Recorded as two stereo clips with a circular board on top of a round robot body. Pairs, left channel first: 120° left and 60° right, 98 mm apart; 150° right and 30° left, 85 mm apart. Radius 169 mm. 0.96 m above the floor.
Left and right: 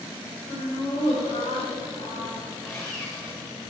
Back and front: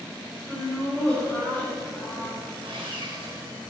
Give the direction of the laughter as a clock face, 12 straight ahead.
8 o'clock.